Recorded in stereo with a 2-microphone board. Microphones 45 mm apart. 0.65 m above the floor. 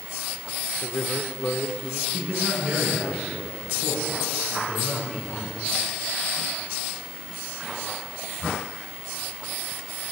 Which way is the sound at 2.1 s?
25° right (ahead or behind).